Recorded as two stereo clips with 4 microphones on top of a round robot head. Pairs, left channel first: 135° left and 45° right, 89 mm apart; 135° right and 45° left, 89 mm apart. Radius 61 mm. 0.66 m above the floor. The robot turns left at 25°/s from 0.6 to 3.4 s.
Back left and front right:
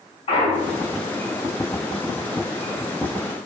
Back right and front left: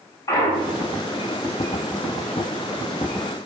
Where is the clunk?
165° left, 3 m; by 1.0 s 155° left, 3 m.